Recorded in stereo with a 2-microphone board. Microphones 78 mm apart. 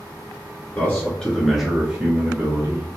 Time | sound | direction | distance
0.8 | a man speaking | 30° left (ahead or behind) | 1.4 m